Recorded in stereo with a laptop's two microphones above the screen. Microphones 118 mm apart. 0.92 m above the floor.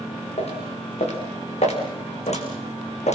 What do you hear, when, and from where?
0.4 s footsteps: 60° left (ahead or behind), 5 m; by 3.1 s 70° left (ahead or behind), 2.5 m